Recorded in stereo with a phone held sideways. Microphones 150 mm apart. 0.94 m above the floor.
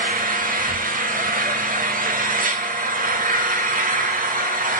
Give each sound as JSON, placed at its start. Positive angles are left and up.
{"t": 0.0, "sound": "an engine running", "side_deg": -60, "distance_m": 1.2}